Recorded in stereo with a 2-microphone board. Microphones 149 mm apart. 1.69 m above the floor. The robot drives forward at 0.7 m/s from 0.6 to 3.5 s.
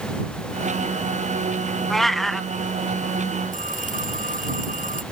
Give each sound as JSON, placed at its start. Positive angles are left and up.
{"t": 1.9, "sound": "a cat meowing", "side_deg": 0}
{"t": 3.5, "sound": "a phone ringing", "side_deg": -65}